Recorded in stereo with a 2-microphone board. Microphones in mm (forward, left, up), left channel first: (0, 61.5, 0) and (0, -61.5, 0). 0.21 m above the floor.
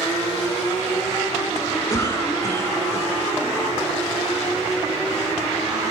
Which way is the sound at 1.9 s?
25° left (ahead or behind).